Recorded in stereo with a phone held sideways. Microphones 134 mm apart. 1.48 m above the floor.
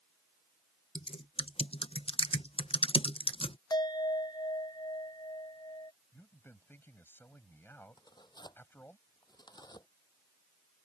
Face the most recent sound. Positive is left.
turn(degrees=30)  # may be behind; listen again after turning